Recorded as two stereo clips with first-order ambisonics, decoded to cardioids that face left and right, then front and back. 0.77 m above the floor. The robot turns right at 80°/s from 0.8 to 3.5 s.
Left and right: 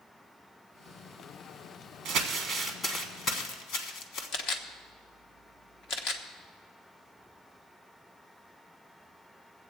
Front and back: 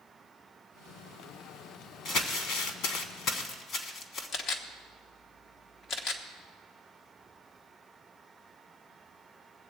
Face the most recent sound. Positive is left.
turn(degrees=55)